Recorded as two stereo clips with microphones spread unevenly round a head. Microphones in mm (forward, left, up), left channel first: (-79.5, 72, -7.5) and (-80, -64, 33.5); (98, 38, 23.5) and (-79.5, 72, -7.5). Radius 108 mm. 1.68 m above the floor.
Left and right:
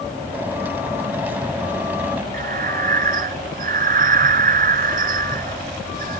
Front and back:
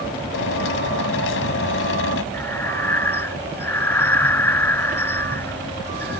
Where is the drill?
10° right.